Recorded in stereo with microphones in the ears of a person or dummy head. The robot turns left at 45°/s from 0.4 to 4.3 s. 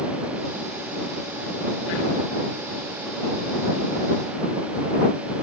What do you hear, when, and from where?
Only background noise.